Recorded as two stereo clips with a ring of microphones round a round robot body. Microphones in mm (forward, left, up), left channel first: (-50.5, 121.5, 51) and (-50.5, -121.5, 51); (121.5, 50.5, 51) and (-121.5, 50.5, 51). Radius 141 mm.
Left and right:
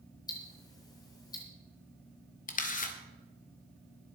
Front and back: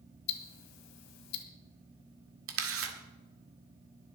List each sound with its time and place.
0.3 s ticking: 15° left, 1.5 m
2.5 s a camera shutter: 150° left, 1.9 m